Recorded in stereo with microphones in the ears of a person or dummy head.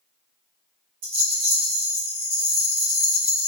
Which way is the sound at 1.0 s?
40° right (ahead or behind).